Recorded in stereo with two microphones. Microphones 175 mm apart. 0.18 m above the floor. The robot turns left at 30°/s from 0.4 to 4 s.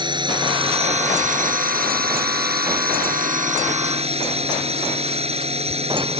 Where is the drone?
30° right; by 6.2 s 135° right.